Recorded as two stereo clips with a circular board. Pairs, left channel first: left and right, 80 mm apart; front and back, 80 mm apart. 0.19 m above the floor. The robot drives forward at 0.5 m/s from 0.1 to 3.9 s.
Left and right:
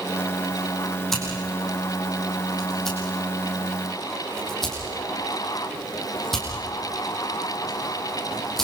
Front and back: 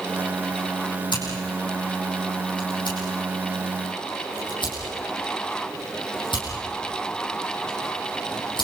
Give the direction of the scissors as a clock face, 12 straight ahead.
12 o'clock.